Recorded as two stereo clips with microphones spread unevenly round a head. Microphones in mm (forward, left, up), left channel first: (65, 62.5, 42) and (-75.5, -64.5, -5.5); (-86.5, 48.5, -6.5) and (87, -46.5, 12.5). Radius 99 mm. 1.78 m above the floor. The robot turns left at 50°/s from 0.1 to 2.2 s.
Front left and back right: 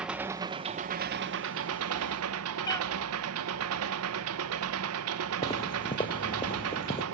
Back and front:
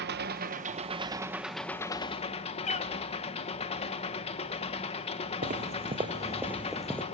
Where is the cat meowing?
95° left, 1.9 m.